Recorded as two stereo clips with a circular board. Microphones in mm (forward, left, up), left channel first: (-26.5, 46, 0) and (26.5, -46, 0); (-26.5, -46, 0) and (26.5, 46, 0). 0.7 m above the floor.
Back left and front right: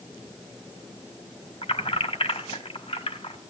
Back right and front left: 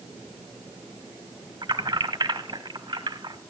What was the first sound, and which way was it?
Keys jangling, 100° left.